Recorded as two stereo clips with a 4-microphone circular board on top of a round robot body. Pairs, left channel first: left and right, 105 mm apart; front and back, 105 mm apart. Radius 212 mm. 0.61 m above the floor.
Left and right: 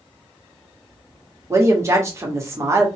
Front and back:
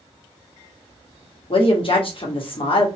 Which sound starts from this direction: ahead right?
A woman speaking, at 1.5 s.